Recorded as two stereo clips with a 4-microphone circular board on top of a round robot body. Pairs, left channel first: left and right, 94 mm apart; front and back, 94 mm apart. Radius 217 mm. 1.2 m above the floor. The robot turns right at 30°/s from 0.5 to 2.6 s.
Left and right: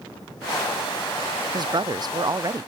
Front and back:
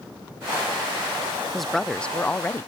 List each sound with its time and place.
1.5 s a woman speaking: 90° right; by 2.7 s 60° right